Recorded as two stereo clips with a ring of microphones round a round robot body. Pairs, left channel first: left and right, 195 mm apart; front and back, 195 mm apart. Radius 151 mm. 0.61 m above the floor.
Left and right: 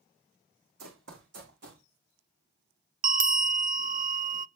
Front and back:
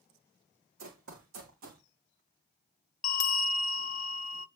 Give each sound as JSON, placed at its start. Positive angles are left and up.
{"t": 0.8, "sound": "running footsteps", "azimuth_deg": -135, "distance_m": 2.0}
{"t": 3.0, "sound": "a bell", "azimuth_deg": -45, "distance_m": 0.5}